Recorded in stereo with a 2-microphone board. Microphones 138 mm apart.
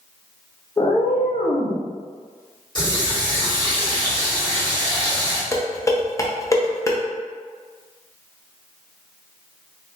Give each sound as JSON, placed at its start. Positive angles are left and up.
{"t": 0.8, "sound": "a cat meowing", "side_deg": 20, "distance_m": 0.5}
{"t": 2.8, "sound": "a running tap", "side_deg": 35, "distance_m": 1.6}
{"t": 5.5, "sound": "dishes clattering", "side_deg": 25, "distance_m": 0.6}